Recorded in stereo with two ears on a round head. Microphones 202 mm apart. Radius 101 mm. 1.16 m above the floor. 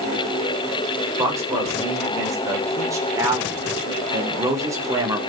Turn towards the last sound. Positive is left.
turn(degrees=-15)  # may be behind; listen again after turning